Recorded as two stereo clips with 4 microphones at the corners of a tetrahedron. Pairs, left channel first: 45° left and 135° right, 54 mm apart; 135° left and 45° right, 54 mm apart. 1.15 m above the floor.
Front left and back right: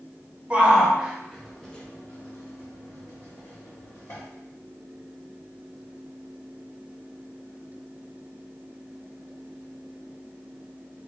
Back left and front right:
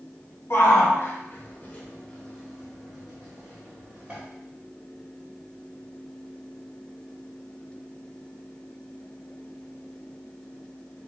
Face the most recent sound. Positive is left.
turn(degrees=20)